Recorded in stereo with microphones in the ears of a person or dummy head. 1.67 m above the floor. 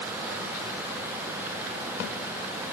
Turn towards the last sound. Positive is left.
No sound to turn to.